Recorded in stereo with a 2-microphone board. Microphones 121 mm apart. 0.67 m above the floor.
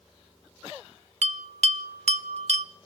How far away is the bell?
About 0.6 m.